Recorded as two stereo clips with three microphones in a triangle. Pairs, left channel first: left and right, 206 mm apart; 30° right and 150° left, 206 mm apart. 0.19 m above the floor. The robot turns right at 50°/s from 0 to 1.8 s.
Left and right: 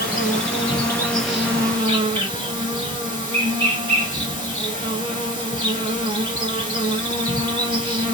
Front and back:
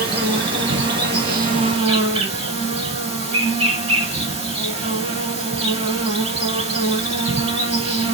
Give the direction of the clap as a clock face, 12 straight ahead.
I don't hear a clap.